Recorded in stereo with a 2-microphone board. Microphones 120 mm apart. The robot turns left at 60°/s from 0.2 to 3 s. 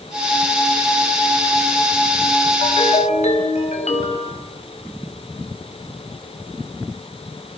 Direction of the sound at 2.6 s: 50° left (ahead or behind).